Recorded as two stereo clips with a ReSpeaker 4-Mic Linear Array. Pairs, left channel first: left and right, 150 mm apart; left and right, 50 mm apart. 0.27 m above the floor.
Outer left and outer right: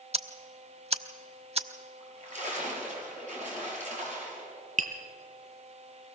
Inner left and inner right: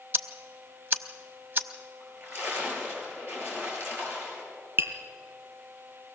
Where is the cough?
No cough in this recording.